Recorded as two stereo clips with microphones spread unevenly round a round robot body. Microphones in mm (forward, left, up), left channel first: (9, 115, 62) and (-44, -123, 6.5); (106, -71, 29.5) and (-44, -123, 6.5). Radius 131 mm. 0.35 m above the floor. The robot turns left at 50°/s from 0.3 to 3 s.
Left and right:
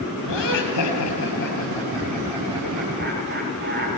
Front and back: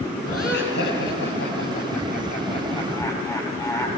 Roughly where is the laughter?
Left.